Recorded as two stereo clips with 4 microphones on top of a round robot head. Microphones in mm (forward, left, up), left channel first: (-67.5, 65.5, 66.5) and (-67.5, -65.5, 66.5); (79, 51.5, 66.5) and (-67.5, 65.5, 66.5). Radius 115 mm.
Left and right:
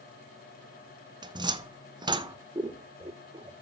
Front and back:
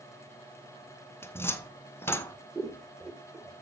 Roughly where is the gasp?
I don't hear a gasp.